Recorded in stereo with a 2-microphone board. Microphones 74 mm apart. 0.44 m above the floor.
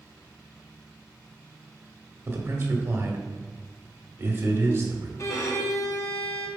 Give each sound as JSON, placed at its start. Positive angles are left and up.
{"t": 2.2, "sound": "a man speaking", "side_deg": -35, "distance_m": 1.3}
{"t": 5.2, "sound": "a violin", "side_deg": 45, "distance_m": 1.0}